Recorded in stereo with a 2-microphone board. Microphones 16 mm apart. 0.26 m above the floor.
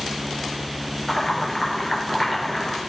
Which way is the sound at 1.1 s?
25° left (ahead or behind).